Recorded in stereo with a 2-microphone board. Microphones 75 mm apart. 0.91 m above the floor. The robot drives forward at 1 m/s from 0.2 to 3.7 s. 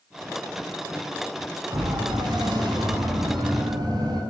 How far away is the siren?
About 6.5 m.